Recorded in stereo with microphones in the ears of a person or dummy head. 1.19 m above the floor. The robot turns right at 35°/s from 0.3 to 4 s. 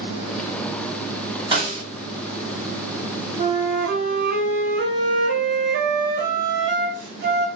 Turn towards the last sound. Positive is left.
turn(degrees=-65)  # may be behind; listen again after turning